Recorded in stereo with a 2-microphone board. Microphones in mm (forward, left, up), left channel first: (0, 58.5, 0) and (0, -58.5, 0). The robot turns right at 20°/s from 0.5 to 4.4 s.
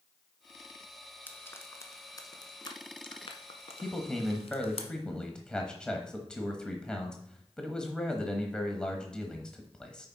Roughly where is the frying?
Centre.